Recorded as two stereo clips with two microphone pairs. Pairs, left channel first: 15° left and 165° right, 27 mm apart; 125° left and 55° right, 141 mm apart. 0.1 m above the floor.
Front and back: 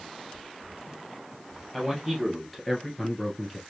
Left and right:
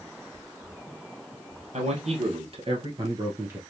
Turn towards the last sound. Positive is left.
turn(degrees=-15)